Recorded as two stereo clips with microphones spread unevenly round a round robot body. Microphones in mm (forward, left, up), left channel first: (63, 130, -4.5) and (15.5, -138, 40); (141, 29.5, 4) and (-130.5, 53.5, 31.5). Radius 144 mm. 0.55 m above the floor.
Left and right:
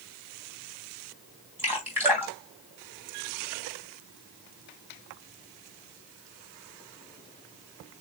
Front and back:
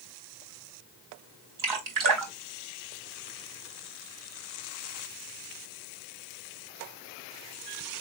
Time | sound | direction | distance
1.6 | dripping | 175° left | 2 m